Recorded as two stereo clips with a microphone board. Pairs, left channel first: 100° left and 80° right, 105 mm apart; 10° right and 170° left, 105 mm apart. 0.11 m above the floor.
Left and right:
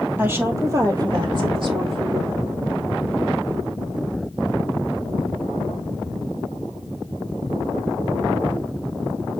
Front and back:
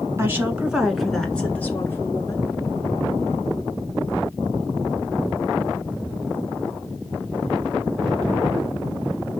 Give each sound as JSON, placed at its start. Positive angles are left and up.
{"t": 0.2, "sound": "a woman speaking", "azimuth_deg": -135, "distance_m": 1.4}